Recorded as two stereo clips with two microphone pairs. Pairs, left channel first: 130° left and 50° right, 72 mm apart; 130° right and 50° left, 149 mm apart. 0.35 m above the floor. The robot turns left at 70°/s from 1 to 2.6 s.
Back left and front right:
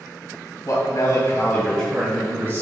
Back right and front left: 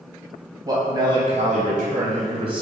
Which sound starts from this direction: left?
A man speaking, at 0.7 s.